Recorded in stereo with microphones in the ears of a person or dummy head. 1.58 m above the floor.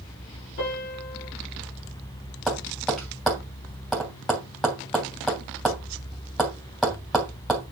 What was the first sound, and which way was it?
A piano, 65° left (ahead or behind).